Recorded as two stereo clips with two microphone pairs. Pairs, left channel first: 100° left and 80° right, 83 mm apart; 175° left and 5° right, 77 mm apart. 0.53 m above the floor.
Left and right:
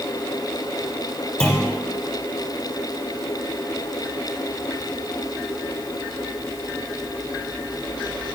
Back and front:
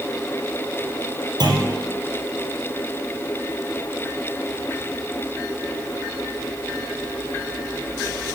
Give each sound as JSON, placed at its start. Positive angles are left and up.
{"t": 1.4, "sound": "a clunk", "azimuth_deg": 30, "distance_m": 3.0}